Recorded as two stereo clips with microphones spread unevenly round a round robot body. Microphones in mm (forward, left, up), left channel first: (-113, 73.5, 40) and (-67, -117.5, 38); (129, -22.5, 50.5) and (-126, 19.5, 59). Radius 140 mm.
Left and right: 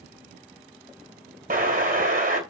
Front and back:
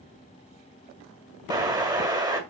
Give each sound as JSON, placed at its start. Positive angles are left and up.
{"t": 1.5, "sound": "an explosion", "azimuth_deg": -115, "distance_m": 1.7}